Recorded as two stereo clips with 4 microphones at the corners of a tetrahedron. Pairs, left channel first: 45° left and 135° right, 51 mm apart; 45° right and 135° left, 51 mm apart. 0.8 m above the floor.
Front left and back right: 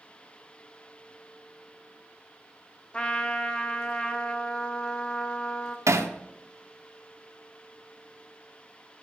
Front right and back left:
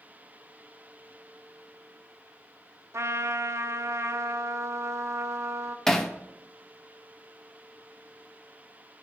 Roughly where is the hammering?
Behind right.